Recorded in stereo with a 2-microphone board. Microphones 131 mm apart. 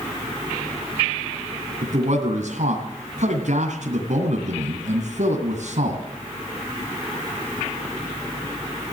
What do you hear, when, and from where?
1.8 s a man speaking: 65° right (ahead or behind), 2.5 m